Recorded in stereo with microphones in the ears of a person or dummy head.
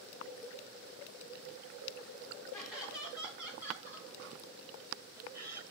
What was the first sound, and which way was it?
Laughter, centre (ahead or behind).